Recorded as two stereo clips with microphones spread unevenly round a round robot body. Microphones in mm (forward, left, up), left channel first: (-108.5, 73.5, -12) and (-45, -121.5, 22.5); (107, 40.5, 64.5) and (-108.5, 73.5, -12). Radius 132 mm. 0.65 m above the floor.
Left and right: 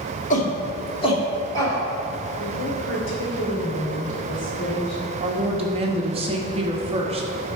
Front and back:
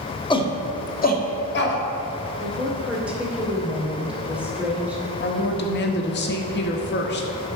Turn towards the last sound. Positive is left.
turn(degrees=-20)